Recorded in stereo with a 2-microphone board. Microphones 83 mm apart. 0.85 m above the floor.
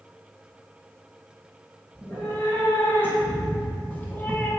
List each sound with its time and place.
1.9 s a cat meowing: 30° left (ahead or behind), 4 m; by 4.5 s 20° left (ahead or behind), 2.5 m